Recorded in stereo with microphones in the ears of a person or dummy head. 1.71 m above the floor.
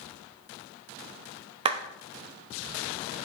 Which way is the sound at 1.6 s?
30° right (ahead or behind).